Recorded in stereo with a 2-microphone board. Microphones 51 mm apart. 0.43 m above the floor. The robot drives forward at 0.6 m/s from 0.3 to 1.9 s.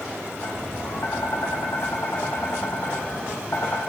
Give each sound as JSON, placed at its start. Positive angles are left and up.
{"t": 0.4, "sound": "tapping", "side_deg": 75, "distance_m": 4.5}